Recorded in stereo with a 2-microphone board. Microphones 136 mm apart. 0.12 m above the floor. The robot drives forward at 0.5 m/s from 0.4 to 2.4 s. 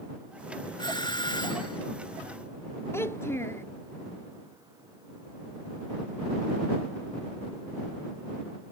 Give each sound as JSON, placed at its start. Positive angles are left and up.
{"t": 0.8, "sound": "a doorbell", "side_deg": 30}
{"t": 2.9, "sound": "a child speaking", "side_deg": 20}